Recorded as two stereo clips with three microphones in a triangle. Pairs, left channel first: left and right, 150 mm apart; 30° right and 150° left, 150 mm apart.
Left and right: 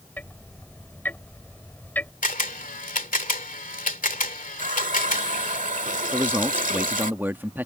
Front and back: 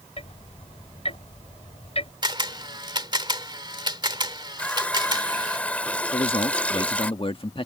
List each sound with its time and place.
0.2 s ticking: 15° left
2.2 s a camera shutter: 95° left
4.6 s a running tap: 110° right
6.1 s a man speaking: 20° right